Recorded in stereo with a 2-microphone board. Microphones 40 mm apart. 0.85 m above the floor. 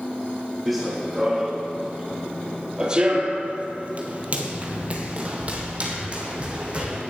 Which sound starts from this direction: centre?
Running footsteps, at 0.7 s.